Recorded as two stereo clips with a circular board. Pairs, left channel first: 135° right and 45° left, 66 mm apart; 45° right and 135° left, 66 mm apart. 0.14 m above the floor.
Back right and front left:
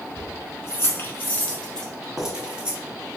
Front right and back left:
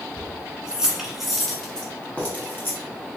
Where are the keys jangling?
160° right, 1.2 m; by 2.8 s 15° right, 0.9 m.